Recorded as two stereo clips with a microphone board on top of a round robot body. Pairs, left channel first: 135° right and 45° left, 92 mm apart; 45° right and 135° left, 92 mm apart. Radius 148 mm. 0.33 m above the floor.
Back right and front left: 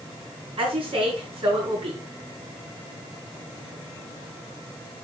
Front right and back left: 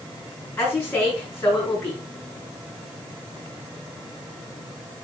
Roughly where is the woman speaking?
Ahead.